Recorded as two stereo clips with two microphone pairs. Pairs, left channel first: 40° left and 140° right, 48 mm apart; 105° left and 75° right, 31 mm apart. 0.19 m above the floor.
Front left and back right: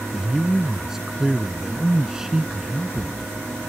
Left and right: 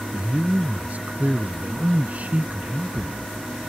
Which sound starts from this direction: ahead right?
A man speaking, at 0.1 s.